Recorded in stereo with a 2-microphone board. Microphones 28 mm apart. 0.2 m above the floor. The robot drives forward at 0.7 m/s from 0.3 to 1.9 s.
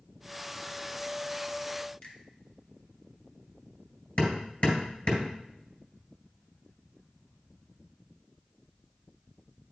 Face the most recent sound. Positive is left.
turn(degrees=60)  # may be behind; listen again after turning